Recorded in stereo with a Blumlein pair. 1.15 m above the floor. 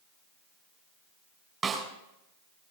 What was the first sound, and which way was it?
A snare drum, 20° right.